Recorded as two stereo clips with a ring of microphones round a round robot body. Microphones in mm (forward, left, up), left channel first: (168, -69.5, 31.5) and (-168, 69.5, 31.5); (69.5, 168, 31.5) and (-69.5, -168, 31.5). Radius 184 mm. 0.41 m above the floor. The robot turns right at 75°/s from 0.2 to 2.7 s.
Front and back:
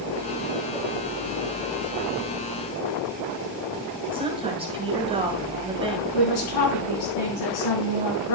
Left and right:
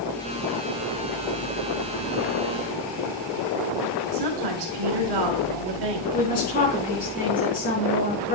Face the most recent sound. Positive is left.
turn(degrees=0)